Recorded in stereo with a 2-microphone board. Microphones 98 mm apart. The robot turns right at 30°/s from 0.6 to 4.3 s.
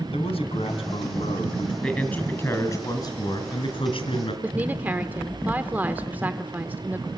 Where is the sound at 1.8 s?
10° left, 4 m; by 4.3 s 85° left, 4 m.